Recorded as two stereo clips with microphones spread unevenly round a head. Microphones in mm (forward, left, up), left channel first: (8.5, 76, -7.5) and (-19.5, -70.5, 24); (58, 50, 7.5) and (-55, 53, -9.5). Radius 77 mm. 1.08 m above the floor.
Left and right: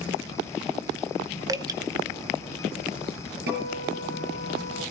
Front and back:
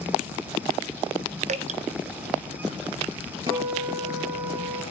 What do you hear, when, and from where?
1.5 s dripping: 170° right, 0.7 m
3.5 s a guitar: 115° right, 6 m